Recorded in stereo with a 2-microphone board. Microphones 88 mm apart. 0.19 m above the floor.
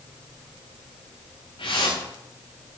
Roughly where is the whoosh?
Left.